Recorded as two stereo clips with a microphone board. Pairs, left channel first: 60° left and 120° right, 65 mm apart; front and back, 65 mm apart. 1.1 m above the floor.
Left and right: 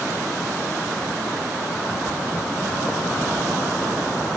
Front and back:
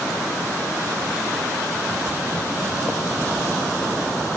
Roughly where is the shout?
No shout in this recording.